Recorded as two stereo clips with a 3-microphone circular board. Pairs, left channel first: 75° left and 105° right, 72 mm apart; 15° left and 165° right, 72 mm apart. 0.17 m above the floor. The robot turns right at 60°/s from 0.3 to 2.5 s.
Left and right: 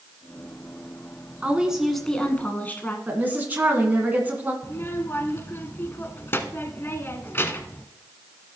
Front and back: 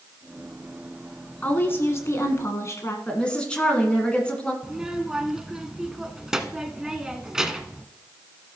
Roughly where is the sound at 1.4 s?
Ahead right.